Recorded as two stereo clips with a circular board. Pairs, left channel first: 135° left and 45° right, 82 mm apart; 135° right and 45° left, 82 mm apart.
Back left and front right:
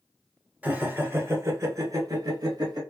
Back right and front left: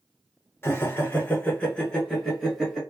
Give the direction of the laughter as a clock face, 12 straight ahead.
3 o'clock.